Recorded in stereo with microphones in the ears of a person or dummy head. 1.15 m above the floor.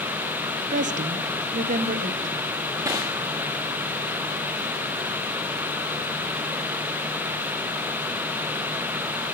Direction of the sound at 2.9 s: 10° right (ahead or behind).